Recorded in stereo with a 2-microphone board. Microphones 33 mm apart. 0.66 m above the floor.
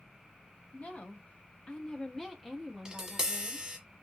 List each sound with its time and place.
0.7 s a woman speaking: 40° left (ahead or behind), 0.9 m; by 3.7 s 20° right (ahead or behind), 1.1 m
2.9 s tapping: 20° right (ahead or behind), 1.1 m